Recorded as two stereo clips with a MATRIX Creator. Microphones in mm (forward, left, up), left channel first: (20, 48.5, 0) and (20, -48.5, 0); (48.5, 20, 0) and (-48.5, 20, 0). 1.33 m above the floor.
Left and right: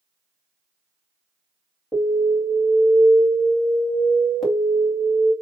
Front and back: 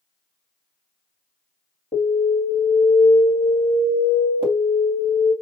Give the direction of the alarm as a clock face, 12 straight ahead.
12 o'clock.